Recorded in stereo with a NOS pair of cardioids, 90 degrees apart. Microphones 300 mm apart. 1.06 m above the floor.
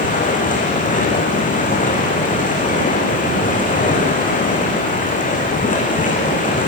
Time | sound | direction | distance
0.0 | running water | 25° left | 7 m